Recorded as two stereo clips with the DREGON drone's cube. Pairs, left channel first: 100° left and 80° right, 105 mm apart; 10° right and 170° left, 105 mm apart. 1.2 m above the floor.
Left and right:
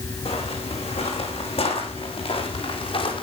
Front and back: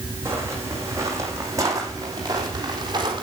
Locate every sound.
0.2 s footsteps: 105° left, 4.5 m; by 3.2 s 125° left, 3.5 m